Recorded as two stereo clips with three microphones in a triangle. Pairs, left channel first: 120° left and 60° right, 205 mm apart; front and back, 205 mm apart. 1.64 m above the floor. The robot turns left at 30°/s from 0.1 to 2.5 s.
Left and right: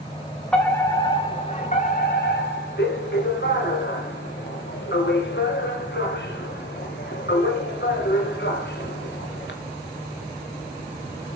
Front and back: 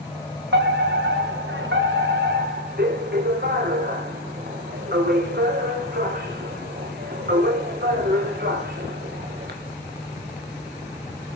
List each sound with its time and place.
0.5 s a fire alarm: 155° right, 3.5 m; by 9.6 s 145° left, 3.5 m